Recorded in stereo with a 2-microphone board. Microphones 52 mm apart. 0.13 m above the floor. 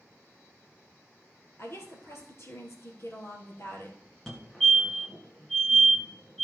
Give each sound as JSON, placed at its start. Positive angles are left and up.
{"t": 1.6, "sound": "a woman speaking", "side_deg": 55, "distance_m": 2.5}
{"t": 4.3, "sound": "a fire alarm", "side_deg": 10, "distance_m": 2.0}